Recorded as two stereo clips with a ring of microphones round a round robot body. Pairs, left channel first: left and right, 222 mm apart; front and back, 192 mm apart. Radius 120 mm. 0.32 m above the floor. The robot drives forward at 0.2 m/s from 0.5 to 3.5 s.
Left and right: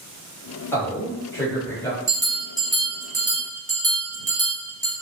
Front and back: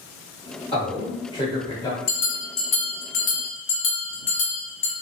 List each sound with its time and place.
0.7 s a man speaking: 20° left, 1.3 m; by 2.0 s 35° left, 1.2 m
2.1 s a bell: 20° right, 1.5 m; by 4.9 s 30° right, 1.3 m